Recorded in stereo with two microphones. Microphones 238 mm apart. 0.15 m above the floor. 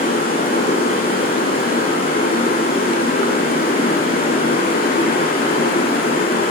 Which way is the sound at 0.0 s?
35° left (ahead or behind).